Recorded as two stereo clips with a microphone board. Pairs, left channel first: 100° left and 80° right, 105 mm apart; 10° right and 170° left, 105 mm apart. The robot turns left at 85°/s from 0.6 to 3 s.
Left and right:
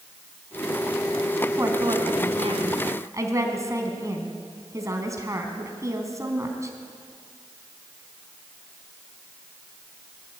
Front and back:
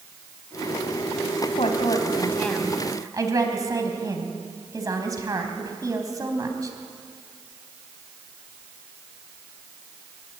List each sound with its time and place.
1.6 s a woman speaking: 15° right, 4 m; by 6.7 s 135° right, 4 m